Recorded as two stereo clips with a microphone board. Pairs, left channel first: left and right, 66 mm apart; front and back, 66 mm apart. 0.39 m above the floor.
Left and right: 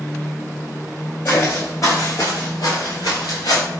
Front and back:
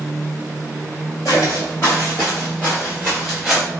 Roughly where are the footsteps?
Ahead left.